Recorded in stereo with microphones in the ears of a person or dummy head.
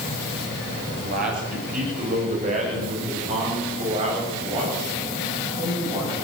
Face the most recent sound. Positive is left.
turn(degrees=-25)  # may be behind; listen again after turning